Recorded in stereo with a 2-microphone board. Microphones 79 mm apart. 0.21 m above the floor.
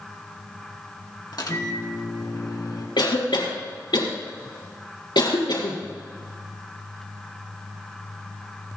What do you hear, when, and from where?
1.3 s a microwave: 60° left (ahead or behind), 1.8 m
3.0 s a cough: 75° left (ahead or behind), 4 m